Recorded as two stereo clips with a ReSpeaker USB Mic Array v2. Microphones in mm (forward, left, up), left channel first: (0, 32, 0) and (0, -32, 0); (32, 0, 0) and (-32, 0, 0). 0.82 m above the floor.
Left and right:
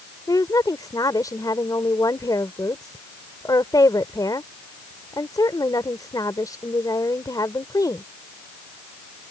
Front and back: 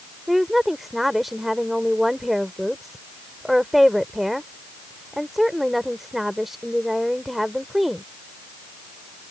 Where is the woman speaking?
95° left.